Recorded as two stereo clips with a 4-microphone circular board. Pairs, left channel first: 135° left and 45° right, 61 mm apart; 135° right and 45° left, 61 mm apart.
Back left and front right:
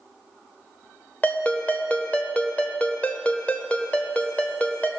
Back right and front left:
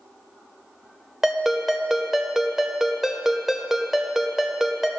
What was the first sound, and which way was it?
A ringtone, 120° left.